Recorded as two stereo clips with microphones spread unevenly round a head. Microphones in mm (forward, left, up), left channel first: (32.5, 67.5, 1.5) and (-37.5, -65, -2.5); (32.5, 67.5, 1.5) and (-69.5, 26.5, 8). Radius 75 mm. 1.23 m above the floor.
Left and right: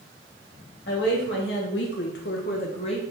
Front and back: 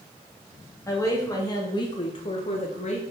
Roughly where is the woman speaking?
Left.